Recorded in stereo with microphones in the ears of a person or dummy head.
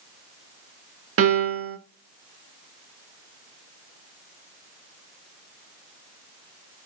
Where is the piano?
85° right, 1.6 m.